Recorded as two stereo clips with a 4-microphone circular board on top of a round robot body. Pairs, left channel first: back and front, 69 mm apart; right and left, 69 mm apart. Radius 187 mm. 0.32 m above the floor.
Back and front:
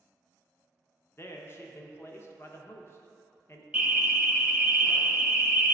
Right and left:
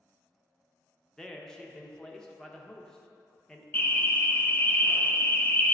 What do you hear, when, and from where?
1.2 s a man speaking: 165° right, 1.0 m
3.7 s an alarm: 60° right, 1.0 m